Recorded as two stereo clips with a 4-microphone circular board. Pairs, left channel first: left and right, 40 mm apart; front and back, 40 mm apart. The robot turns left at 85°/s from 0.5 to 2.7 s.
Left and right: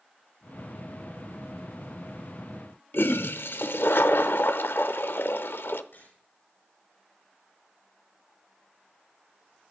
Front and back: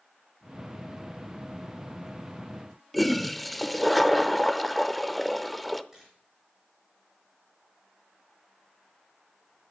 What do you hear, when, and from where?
2.9 s a toilet flushing: 90° left, 0.6 m
5.9 s a camera shutter: 105° left, 9 m